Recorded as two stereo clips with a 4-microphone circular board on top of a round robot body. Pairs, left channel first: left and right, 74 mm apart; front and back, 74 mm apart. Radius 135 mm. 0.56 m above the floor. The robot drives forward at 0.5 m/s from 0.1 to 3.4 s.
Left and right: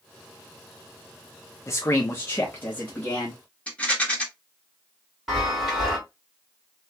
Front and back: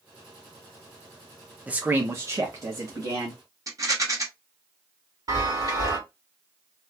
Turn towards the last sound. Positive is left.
turn(degrees=-175)